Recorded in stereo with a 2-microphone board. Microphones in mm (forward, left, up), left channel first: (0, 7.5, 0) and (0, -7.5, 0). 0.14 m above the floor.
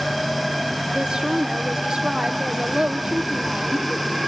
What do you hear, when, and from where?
0.9 s a woman speaking: 75° right (ahead or behind), 5 m